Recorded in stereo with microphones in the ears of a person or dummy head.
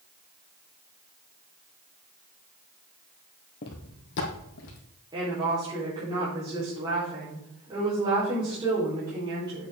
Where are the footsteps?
45° left (ahead or behind), 2 m; by 4.8 s 65° left (ahead or behind), 3 m.